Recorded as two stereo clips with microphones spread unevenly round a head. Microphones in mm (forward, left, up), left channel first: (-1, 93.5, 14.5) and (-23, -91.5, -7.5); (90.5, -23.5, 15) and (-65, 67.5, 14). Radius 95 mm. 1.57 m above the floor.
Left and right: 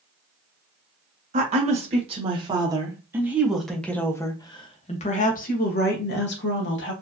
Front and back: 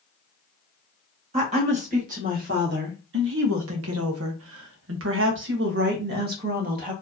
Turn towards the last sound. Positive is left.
turn(degrees=110)